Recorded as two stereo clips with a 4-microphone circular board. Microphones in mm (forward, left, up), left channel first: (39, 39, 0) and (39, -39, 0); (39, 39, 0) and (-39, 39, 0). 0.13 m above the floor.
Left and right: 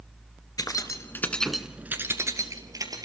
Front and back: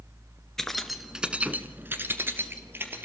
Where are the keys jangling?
85° left, 1.7 m; by 3.1 s 120° right, 2.5 m.